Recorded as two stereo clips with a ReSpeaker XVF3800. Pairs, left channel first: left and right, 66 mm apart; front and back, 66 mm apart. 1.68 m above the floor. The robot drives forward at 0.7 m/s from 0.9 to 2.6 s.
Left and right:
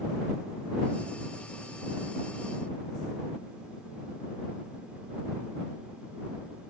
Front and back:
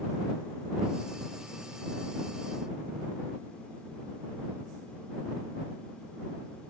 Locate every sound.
Only background noise.